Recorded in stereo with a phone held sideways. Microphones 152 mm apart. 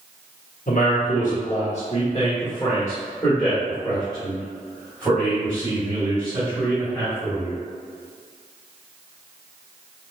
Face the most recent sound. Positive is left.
turn(degrees=-15)  # may be behind; listen again after turning